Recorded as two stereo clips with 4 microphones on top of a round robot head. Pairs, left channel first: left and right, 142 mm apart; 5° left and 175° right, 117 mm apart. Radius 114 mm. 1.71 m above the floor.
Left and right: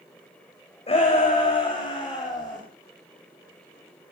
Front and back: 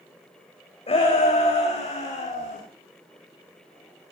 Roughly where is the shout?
Ahead left.